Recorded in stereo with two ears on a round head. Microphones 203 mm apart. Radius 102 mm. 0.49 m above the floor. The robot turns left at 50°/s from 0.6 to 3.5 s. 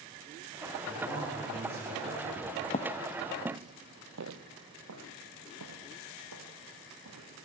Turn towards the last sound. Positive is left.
turn(degrees=-80)